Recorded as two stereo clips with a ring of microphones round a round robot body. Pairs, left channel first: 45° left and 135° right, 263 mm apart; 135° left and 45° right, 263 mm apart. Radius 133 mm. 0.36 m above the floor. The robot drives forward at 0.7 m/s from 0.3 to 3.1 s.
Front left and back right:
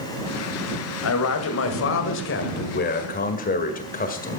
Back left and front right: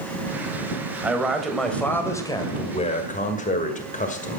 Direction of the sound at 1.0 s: 40° left.